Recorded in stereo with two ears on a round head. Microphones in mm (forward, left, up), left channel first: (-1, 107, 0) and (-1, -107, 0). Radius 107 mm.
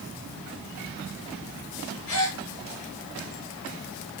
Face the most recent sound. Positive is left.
turn(degrees=70)  # may be behind; listen again after turning